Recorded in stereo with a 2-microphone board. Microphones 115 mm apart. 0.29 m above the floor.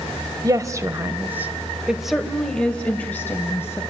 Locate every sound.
0.4 s a woman speaking: 30° right (ahead or behind), 1.4 m; by 3.8 s 20° left (ahead or behind), 1.9 m